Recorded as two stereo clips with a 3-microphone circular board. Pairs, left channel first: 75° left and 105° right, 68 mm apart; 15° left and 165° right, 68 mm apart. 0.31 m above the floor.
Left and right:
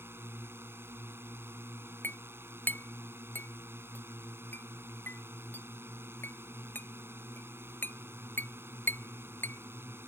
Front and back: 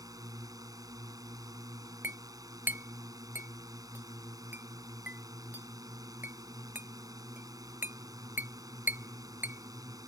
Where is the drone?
155° right.